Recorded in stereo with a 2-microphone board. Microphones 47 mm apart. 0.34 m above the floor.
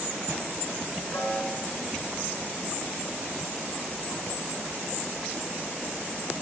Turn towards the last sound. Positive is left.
turn(degrees=70)  # may be behind; listen again after turning